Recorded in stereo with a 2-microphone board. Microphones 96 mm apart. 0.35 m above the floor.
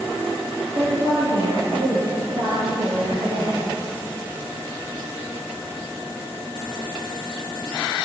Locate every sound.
0.8 s a woman speaking: 75° right (ahead or behind), 9 m; by 3.6 s 80° right, 10 m